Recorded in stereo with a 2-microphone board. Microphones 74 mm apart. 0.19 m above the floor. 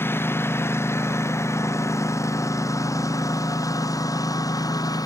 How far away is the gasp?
No gasp in this recording.